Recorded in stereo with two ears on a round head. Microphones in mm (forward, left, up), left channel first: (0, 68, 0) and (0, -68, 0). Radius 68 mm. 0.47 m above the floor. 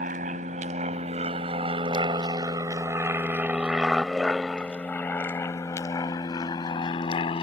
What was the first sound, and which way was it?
An aircraft, 55° right (ahead or behind).